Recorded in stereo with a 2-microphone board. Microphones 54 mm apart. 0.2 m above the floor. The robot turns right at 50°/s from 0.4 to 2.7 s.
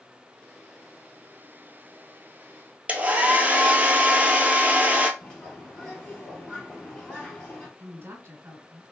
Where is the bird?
15° left (ahead or behind), 1.7 m.